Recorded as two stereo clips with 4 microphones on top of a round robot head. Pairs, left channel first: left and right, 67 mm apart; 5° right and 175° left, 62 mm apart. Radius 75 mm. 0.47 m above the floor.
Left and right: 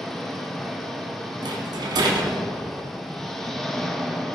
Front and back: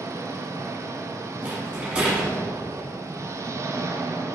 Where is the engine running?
175° left, 1.0 m.